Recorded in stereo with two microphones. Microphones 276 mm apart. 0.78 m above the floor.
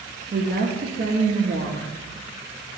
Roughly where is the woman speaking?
Right.